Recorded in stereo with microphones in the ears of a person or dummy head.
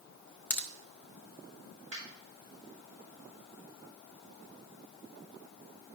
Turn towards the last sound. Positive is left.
turn(degrees=-40)  # may be behind; listen again after turning